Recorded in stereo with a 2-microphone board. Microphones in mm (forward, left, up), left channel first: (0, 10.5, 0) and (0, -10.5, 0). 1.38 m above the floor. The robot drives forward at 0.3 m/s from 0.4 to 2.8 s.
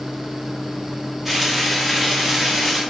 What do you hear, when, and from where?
1.2 s frying: 10° right (ahead or behind), 0.8 m; by 2.8 s 5° right (ahead or behind), 1.3 m